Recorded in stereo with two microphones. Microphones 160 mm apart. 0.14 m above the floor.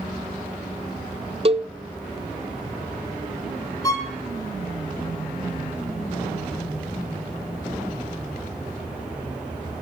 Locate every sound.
1.4 s a cowbell: 40° right (ahead or behind), 0.6 m
3.8 s a violin: 20° left (ahead or behind), 1.9 m